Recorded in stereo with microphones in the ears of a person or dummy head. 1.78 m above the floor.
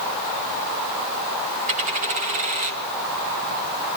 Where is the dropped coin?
40° right (ahead or behind), 2 m.